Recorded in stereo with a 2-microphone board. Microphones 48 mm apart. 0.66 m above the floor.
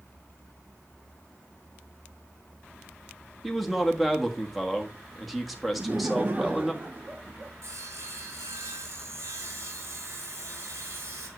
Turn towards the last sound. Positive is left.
turn(degrees=-75)  # may be behind; listen again after turning